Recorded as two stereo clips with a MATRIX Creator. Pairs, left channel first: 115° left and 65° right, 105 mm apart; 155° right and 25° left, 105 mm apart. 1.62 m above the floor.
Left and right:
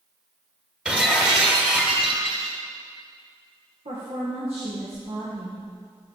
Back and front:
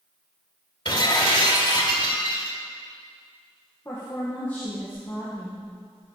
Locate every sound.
0.8 s breaking glass: 145° right, 1.8 m
3.9 s a woman speaking: 85° right, 1.9 m